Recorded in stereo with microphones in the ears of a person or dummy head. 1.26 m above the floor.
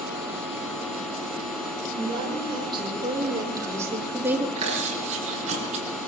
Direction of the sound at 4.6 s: 35° right (ahead or behind).